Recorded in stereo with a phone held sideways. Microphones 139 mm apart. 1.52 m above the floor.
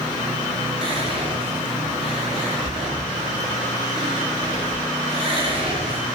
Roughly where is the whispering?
Right.